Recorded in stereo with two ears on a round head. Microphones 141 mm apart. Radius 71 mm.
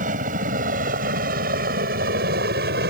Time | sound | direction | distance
0.0 | a helicopter | 55° right (ahead or behind) | ?